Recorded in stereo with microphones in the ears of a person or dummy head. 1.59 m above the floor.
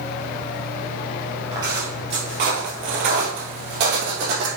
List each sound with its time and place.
1.5 s footsteps: 20° right (ahead or behind), 1.6 m; by 4.5 s 55° right (ahead or behind), 2.5 m